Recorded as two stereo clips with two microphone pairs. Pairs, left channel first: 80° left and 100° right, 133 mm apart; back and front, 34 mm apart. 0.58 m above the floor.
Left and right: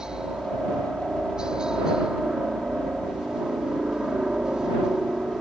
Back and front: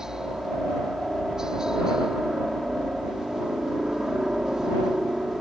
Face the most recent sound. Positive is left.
turn(degrees=-25)